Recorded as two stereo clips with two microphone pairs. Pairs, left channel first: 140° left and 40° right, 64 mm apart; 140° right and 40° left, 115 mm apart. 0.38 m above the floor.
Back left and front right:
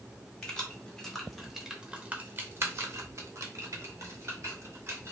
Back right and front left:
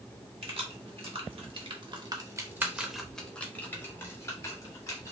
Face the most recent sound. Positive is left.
turn(degrees=-80)